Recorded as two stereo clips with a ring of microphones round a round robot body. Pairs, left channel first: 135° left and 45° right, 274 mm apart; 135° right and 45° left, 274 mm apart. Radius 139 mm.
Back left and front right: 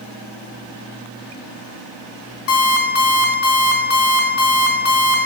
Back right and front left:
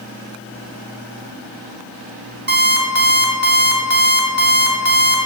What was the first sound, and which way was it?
An alarm clock, 100° left.